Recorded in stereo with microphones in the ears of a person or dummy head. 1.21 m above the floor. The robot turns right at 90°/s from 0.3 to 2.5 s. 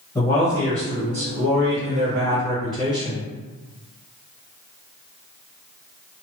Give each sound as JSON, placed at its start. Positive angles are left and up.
{"t": 0.1, "sound": "a man speaking", "azimuth_deg": 160, "distance_m": 1.3}